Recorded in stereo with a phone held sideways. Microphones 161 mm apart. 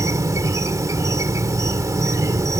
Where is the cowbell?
I don't hear a cowbell.